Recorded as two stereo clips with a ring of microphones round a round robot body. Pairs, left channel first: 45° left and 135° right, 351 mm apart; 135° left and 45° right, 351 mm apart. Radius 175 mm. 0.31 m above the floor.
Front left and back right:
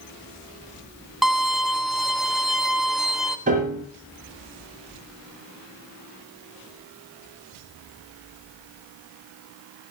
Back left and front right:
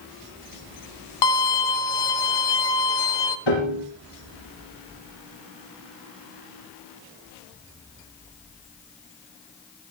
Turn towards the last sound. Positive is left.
turn(degrees=155)